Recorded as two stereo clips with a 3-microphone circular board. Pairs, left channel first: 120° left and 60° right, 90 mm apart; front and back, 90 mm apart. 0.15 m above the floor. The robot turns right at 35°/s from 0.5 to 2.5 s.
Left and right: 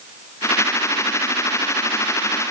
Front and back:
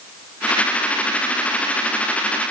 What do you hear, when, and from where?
Only background noise.